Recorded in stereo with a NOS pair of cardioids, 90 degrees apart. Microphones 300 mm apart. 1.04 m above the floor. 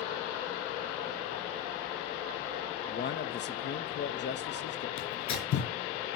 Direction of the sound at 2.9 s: 35° left.